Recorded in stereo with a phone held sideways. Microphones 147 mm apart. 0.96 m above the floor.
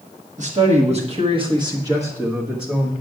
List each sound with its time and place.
0.4 s a man speaking: 55° right (ahead or behind), 1.5 m; by 2.9 s 5° left (ahead or behind), 1.2 m